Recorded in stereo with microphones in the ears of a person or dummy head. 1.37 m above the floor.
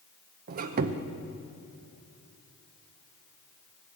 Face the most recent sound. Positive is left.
turn(degrees=-50)  # may be behind; listen again after turning